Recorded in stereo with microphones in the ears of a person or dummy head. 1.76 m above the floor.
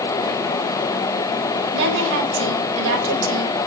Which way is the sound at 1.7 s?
60° right (ahead or behind).